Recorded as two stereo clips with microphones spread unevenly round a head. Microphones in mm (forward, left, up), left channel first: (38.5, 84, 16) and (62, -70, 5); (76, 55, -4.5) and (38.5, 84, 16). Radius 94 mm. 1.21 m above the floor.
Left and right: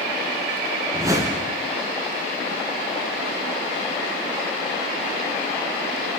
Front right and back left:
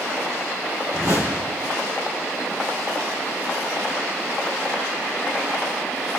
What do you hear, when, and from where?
0.9 s a whoosh: 155° right, 3 m